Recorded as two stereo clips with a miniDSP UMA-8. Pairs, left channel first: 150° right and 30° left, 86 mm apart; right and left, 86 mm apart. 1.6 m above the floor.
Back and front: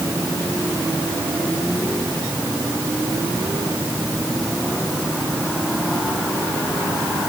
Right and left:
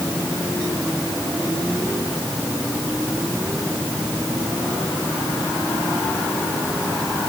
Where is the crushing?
I don't hear crushing.